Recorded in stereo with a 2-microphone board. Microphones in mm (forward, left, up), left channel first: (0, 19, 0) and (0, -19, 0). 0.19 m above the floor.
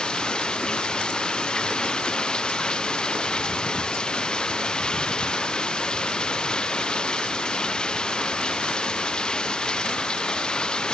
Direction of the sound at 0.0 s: 25° left (ahead or behind).